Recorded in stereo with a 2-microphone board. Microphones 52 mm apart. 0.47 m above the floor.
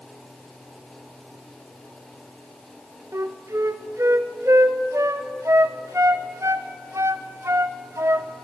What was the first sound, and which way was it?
A flute, 70° right (ahead or behind).